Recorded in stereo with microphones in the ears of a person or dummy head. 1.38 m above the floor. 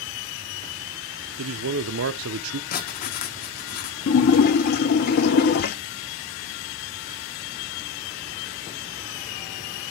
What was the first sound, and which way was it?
A man speaking, 80° right.